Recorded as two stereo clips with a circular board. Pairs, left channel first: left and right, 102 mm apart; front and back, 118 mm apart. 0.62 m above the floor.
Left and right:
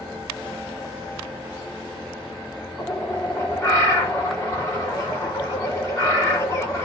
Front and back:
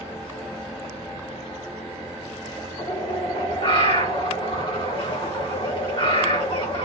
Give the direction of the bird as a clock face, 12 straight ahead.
11 o'clock.